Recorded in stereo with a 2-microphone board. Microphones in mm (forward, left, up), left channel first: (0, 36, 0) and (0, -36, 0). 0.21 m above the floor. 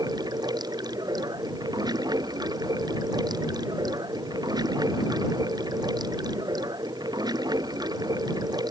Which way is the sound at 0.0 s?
85° right.